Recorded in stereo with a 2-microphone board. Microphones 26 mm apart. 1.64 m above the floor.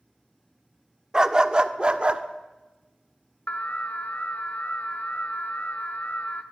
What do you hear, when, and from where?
1.1 s a dog barking: 20° right (ahead or behind), 1.2 m; by 2.2 s 40° right (ahead or behind), 1.6 m
3.5 s an alarm: 55° left (ahead or behind), 1.7 m